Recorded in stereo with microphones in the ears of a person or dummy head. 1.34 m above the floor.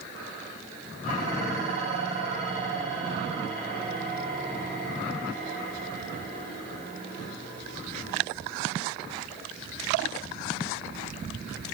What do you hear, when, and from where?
1.0 s dishes clattering: 45° right (ahead or behind), 6 m